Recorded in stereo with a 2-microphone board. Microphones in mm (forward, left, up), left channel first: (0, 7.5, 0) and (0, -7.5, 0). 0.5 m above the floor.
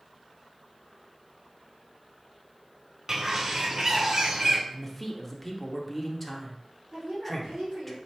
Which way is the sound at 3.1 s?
30° right (ahead or behind).